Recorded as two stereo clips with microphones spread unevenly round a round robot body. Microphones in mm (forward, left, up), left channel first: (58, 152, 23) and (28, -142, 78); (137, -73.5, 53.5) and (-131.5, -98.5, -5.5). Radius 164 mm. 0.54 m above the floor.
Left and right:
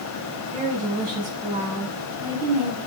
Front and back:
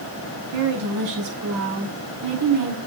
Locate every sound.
0.5 s a woman speaking: 175° right, 5 m; by 2.8 s 175° left, 4 m